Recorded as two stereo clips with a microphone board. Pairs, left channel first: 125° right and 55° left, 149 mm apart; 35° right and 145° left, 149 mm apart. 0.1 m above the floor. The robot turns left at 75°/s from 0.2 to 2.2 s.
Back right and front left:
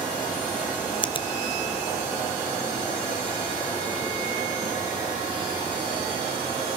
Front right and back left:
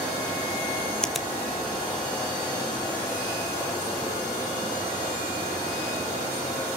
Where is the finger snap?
115° right, 1.1 m; by 1.3 s 135° right, 1.1 m.